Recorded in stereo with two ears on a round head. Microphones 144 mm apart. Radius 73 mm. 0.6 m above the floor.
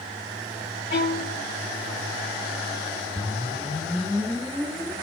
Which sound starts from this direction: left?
A violin, at 0.9 s.